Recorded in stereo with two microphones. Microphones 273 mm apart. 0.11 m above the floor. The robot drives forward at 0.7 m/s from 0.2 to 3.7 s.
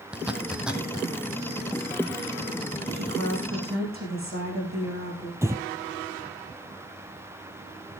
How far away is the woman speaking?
About 6.5 m.